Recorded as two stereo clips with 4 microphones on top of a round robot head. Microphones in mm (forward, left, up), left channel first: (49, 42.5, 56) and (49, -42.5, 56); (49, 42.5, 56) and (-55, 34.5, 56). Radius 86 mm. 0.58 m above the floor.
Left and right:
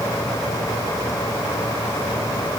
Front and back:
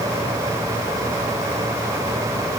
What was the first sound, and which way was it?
Only background noise.